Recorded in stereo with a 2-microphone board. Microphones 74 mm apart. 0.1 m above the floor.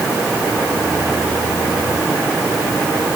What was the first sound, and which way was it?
Only background noise.